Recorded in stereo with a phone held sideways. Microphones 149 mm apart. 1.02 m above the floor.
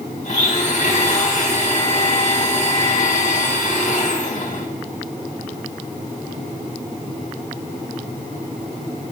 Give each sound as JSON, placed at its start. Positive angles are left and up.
{"t": 0.2, "sound": "a blender", "side_deg": 55, "distance_m": 3.0}